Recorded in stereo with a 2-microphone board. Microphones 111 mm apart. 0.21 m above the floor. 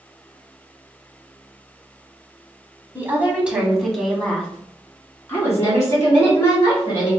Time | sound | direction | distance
3.0 | a woman speaking | 20° right (ahead or behind) | 1.3 m